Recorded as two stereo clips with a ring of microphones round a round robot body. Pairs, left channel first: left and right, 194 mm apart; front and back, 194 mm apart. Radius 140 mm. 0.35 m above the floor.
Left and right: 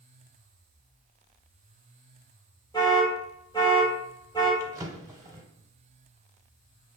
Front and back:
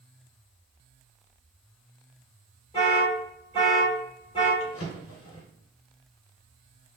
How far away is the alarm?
About 1.5 m.